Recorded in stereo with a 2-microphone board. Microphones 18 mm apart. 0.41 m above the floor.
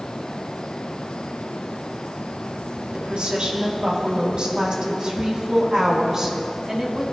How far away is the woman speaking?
About 3.5 m.